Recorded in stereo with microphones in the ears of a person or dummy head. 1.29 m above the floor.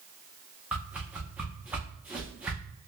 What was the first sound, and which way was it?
A whoosh, 10° right (ahead or behind).